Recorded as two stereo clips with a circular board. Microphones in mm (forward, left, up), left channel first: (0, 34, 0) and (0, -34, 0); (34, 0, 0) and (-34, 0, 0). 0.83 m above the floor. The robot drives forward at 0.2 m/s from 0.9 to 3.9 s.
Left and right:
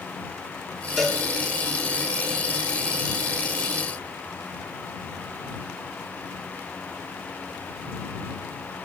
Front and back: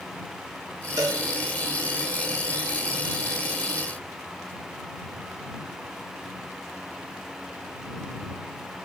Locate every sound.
1.0 s a cowbell: straight behind, 1.7 m